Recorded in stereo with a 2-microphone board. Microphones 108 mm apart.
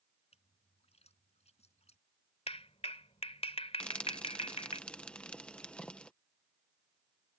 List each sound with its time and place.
0.3 s a splash: 75° left (ahead or behind)
2.5 s a clap: 65° left (ahead or behind)
3.8 s frying: 10° left (ahead or behind)